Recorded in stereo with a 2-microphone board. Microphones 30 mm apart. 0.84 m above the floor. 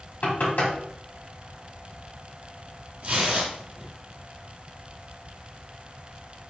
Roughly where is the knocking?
Left.